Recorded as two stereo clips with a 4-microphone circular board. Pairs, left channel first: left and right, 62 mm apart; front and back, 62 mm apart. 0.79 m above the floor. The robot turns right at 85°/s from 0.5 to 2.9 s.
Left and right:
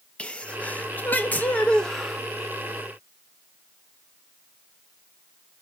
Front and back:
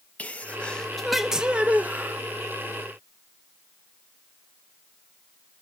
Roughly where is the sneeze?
Ahead left.